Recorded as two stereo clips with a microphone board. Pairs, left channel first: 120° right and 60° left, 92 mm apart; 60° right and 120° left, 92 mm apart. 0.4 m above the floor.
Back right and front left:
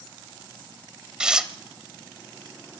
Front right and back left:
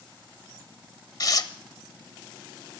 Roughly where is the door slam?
No door slam in this recording.